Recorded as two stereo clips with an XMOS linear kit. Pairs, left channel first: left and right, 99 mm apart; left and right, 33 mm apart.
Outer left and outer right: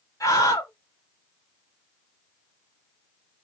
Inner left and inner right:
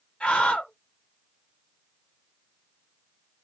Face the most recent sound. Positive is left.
turn(degrees=30)  # may be behind; listen again after turning